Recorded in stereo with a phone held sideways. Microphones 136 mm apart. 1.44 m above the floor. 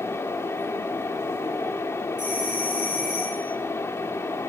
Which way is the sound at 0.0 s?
20° left (ahead or behind).